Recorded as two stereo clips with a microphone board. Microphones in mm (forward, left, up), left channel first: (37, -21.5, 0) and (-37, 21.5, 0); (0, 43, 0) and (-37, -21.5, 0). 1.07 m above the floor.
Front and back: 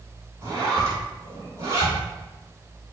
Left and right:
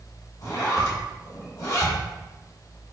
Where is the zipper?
95° left, 3 m.